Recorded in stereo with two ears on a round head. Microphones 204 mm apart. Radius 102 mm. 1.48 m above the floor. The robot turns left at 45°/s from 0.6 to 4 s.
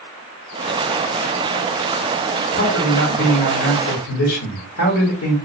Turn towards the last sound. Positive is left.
turn(degrees=85)